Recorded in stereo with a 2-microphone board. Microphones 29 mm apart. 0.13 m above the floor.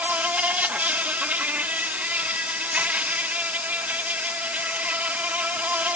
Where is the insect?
60° right (ahead or behind).